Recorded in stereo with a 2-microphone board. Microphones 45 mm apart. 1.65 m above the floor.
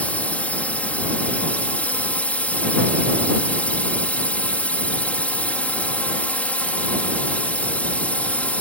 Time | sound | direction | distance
0.0 | a drone | 30° left (ahead or behind) | ?